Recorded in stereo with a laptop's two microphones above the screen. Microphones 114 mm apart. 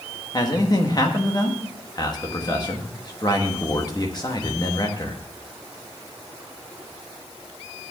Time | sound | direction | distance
0.3 | a man speaking | 35° left (ahead or behind) | 1.3 m